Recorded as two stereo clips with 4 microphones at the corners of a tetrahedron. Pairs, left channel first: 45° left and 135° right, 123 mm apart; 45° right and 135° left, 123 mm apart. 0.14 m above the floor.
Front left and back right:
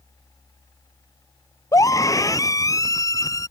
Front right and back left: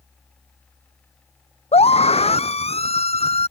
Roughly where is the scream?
Ahead.